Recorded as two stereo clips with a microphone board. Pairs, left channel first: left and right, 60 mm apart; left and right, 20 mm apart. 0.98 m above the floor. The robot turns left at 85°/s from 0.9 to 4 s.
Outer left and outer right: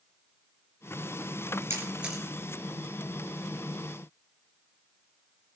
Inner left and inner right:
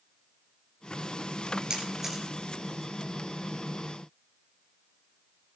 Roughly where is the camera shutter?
Right.